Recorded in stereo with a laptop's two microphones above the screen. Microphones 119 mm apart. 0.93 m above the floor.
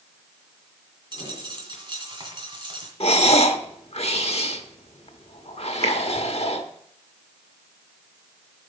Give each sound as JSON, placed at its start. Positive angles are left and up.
{"t": 1.1, "sound": "a dropped coin", "side_deg": -40, "distance_m": 2.0}
{"t": 3.0, "sound": "breathing", "side_deg": 55, "distance_m": 0.9}
{"t": 5.8, "sound": "a finger snap", "side_deg": -60, "distance_m": 1.3}